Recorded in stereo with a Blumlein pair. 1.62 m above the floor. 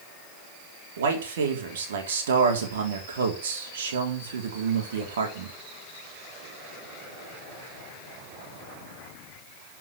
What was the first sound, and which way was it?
A man speaking, 60° right.